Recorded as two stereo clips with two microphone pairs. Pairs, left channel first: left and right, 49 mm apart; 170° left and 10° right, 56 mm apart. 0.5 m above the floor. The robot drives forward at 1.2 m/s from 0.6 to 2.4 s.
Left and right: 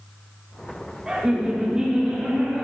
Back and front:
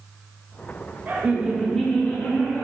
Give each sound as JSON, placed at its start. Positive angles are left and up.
{"t": 1.1, "sound": "laughter", "azimuth_deg": -25, "distance_m": 1.1}